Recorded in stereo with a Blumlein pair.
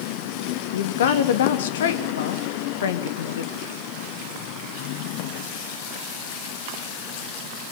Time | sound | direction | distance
0.7 | a woman speaking | 60° left | 2.5 m